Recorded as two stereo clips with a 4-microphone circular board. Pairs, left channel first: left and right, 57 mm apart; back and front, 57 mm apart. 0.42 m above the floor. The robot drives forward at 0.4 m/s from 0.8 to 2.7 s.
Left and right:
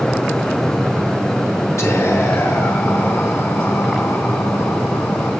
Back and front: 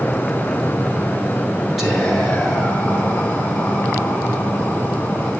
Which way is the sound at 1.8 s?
90° left.